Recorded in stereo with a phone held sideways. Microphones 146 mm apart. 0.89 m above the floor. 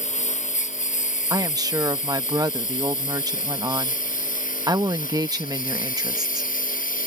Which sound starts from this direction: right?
A woman speaking, at 1.3 s.